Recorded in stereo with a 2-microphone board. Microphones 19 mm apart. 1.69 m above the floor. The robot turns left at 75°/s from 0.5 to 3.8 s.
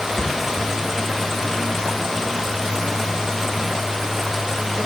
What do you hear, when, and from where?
0.2 s a thud: 55° left (ahead or behind), 4 m